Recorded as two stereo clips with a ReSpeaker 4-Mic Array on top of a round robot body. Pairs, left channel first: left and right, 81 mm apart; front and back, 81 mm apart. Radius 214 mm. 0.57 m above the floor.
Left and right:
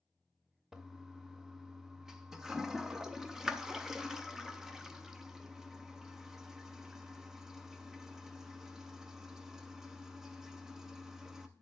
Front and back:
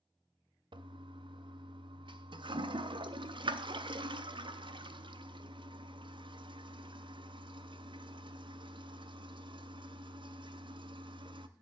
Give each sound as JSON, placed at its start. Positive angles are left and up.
{"t": 0.7, "sound": "a toilet flushing", "azimuth_deg": -175, "distance_m": 0.7}